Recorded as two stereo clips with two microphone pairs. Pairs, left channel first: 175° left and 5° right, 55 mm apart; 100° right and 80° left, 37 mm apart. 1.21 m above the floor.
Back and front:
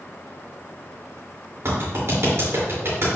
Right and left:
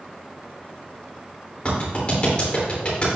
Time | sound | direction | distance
1.6 | a clap | 40° right | 3 m